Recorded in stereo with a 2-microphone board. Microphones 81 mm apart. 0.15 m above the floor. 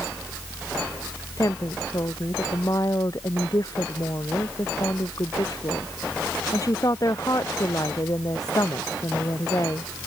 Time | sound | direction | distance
1.4 | a woman speaking | 45° left (ahead or behind) | ?